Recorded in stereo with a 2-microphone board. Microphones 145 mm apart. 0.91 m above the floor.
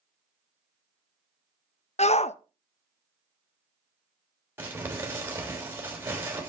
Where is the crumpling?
15° right (ahead or behind), 3.5 m.